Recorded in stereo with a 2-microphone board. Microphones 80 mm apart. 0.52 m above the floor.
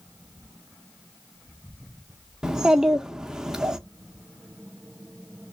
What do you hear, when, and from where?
2.4 s a child speaking: 10° right (ahead or behind), 0.6 m